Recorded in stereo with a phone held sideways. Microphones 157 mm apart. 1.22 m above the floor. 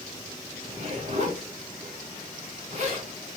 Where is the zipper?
45° right (ahead or behind), 1.3 m.